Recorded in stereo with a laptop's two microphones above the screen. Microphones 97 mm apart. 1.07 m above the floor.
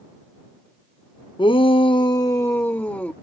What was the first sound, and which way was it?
A shout, 60° left (ahead or behind).